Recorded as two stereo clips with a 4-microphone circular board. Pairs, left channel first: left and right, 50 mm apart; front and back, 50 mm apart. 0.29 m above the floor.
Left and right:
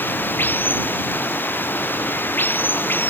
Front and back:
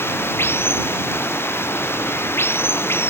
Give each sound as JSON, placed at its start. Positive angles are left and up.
{"t": 0.0, "sound": "running water", "azimuth_deg": 40}